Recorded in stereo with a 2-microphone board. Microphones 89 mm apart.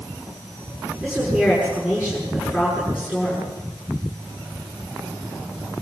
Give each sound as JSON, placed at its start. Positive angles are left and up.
{"t": 1.0, "sound": "a woman speaking", "side_deg": -15, "distance_m": 8.5}